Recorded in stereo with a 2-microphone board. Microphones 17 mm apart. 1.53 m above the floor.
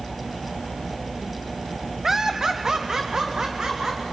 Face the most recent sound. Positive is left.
turn(degrees=-50)  # may be behind; listen again after turning